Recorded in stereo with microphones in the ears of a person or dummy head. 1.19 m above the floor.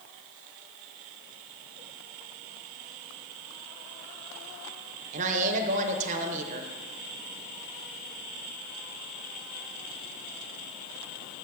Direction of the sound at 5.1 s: 40° right (ahead or behind).